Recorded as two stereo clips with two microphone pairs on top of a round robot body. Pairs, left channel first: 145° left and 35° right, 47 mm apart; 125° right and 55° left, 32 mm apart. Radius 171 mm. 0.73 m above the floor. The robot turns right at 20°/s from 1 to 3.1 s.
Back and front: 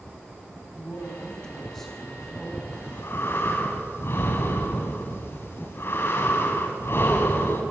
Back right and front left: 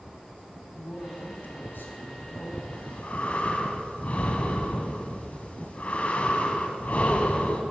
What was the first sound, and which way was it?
A man speaking, 145° right.